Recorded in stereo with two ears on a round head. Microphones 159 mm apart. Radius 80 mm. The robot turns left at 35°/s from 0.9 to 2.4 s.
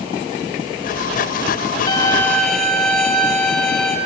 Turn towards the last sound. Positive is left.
turn(degrees=5)  # may be behind; listen again after turning